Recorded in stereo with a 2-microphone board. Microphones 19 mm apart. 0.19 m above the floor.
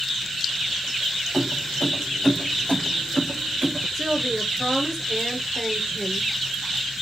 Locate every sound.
1.3 s keys jangling: 50° left (ahead or behind), 3.5 m; by 3.9 s 60° left (ahead or behind), 2 m
4.0 s a woman speaking: 10° left (ahead or behind), 3.5 m